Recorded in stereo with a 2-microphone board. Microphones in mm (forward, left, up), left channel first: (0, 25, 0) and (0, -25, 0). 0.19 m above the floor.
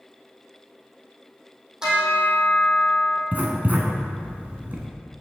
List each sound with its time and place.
1.8 s a bell: 15° right (ahead or behind), 3 m
3.3 s writing: 35° right (ahead or behind), 1.5 m